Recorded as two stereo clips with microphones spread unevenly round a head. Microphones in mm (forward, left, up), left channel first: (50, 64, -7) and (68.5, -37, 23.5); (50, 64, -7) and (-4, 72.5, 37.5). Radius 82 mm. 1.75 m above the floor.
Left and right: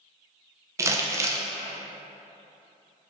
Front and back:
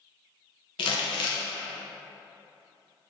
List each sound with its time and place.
0.8 s crumpling: 35° right, 0.5 m